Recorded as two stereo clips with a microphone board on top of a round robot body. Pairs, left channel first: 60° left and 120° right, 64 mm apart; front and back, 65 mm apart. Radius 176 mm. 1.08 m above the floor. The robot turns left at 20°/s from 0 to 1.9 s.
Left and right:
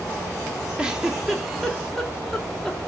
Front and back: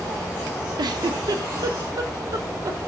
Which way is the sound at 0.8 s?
165° left.